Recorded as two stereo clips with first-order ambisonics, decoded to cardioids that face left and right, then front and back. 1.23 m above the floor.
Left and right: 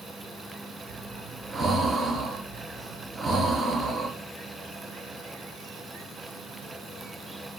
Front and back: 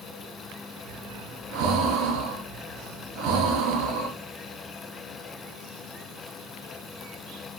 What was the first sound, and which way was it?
Breathing, 160° right.